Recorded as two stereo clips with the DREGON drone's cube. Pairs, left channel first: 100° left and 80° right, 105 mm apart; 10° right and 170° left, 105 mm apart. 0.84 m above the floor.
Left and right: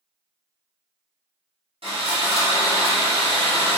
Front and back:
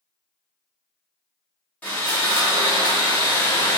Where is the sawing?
85° right, 1.7 m.